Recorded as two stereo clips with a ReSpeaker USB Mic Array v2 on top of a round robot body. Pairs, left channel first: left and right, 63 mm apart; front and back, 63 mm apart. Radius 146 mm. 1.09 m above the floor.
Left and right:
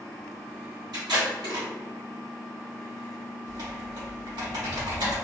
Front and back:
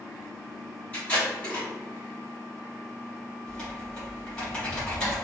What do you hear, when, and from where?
0.9 s tape being pulled: 70° right, 1.2 m
3.5 s typing on a keyboard: 80° right, 1.9 m